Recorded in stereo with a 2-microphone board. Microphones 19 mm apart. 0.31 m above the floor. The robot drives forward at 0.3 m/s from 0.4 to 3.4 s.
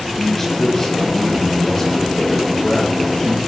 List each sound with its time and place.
0.1 s a man speaking: 30° left (ahead or behind), 8.5 m; by 3.4 s 35° left (ahead or behind), 7.5 m